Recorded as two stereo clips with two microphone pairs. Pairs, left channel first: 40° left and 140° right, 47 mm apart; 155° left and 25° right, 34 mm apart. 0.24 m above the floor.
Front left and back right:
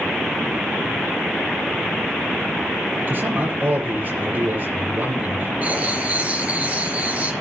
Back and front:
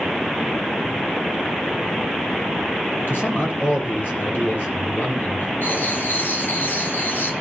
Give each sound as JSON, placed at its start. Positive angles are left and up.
{"t": 3.1, "sound": "a man speaking", "azimuth_deg": 170, "distance_m": 6.5}
{"t": 5.6, "sound": "writing", "azimuth_deg": 165, "distance_m": 3.0}